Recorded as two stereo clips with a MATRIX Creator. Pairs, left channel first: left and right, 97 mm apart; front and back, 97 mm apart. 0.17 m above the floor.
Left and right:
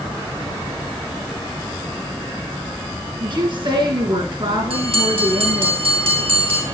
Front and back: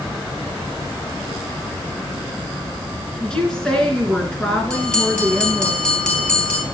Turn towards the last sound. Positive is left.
turn(degrees=-80)